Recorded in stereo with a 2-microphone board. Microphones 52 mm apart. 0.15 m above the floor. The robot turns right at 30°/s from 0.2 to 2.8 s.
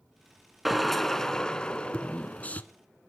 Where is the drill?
5° right, 1.1 m; by 2.6 s 55° left, 1.1 m.